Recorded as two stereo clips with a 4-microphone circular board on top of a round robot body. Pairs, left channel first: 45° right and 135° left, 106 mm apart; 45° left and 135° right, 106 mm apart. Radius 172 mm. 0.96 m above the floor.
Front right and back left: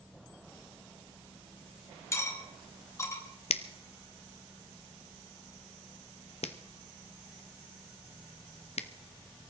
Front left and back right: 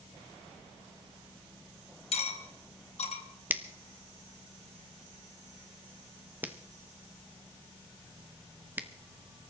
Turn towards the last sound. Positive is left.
turn(degrees=-60)